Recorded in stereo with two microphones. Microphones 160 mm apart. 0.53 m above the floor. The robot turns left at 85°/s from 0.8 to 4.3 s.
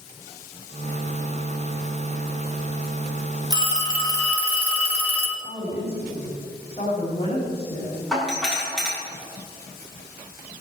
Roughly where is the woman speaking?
Left.